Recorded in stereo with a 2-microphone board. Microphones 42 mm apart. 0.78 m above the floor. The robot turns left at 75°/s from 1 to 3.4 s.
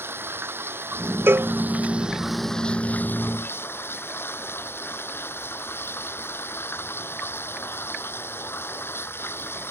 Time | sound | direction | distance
0.0 | running water | 75° right | ?
1.3 | a cowbell | 65° right (ahead or behind) | ?